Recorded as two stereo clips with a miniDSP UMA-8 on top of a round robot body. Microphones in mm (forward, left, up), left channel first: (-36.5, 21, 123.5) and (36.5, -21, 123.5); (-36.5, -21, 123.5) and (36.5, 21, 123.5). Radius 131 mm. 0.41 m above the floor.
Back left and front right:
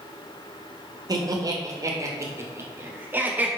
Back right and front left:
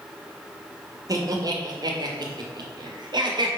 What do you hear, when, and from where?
1.1 s laughter: 5° right, 2 m; by 3.5 s 40° left, 2 m